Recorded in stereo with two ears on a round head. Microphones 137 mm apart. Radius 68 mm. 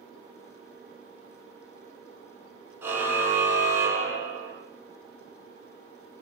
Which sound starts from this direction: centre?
A car horn, at 2.8 s.